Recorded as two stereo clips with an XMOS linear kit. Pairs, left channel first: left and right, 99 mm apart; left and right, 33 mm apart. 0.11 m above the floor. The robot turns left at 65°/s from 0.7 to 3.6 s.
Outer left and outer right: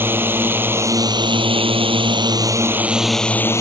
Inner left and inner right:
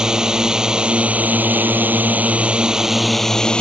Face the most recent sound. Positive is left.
turn(degrees=150)